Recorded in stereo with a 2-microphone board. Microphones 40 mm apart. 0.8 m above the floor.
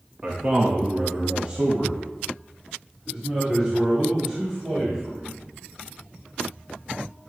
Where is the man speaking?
35° right (ahead or behind), 1.0 m; by 5.4 s 20° right (ahead or behind), 3.5 m.